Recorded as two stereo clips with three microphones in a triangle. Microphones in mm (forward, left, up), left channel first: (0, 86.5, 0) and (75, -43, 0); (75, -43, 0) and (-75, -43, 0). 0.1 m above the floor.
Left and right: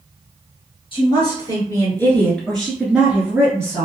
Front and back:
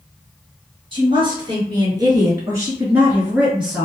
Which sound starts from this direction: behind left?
A woman speaking, at 0.9 s.